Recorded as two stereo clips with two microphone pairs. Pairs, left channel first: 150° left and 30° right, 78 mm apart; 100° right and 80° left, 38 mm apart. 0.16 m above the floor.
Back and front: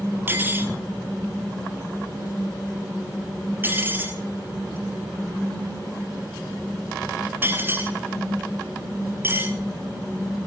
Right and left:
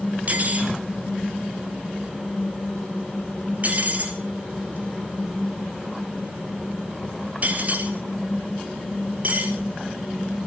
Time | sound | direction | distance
0.3 | cutlery clinking | 35° left | 2 m